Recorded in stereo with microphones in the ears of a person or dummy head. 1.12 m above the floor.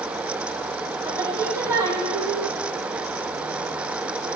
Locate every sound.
1.1 s singing: 15° right (ahead or behind), 2.0 m